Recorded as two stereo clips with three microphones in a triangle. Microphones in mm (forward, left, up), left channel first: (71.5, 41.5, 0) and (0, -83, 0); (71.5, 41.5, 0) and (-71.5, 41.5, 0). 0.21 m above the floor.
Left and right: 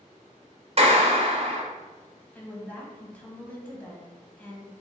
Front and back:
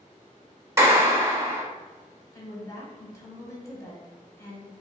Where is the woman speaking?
Straight ahead, 1.1 m.